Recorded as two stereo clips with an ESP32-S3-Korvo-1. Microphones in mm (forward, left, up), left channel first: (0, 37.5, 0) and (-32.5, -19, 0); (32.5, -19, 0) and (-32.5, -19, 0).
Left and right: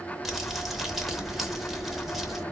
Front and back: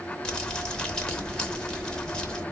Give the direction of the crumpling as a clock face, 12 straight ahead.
1 o'clock.